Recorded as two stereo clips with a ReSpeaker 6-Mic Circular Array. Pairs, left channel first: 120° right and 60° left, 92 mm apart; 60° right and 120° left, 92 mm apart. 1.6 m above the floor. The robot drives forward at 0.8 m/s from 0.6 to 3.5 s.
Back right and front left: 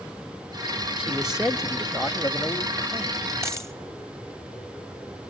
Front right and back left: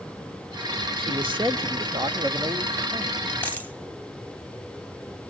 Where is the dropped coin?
5° left, 2.5 m.